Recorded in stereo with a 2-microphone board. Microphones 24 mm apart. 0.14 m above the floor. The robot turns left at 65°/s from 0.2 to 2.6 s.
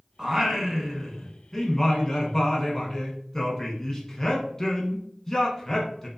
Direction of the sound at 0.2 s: 15° right (ahead or behind).